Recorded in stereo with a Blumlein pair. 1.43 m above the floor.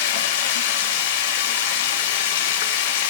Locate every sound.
0.0 s running water: 50° left, 1.3 m